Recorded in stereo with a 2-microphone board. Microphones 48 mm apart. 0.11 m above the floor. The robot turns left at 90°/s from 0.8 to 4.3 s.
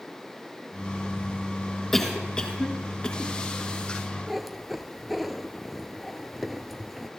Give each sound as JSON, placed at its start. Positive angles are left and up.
{"t": 1.9, "sound": "a cough", "side_deg": 5, "distance_m": 1.7}
{"t": 4.3, "sound": "a cat meowing", "side_deg": -5, "distance_m": 0.9}